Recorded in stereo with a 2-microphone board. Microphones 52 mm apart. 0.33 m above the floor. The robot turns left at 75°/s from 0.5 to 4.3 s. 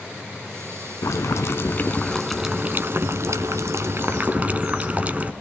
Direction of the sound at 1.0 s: 95° left.